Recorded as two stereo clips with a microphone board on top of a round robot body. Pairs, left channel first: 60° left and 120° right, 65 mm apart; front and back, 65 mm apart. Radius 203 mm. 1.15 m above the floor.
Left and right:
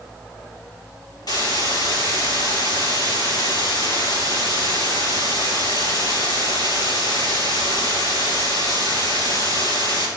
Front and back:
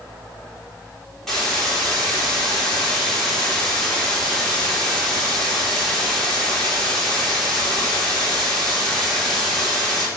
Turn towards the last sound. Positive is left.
turn(degrees=85)